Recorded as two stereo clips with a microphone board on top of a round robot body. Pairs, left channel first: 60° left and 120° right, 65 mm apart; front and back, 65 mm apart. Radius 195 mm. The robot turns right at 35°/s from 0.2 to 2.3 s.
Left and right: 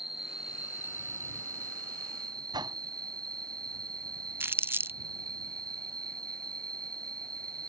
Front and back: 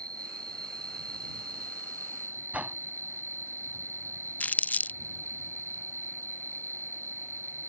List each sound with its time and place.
0.0 s an insect: 155° left; by 7.7 s 130° right
2.5 s a whoosh: 115° right
4.4 s crumpling: 65° right